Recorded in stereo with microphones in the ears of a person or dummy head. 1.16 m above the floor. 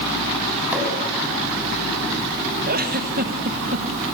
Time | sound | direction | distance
0.7 | a pop | 5° right (ahead or behind) | 6.5 m
2.7 | a giggle | 40° right (ahead or behind) | 1.3 m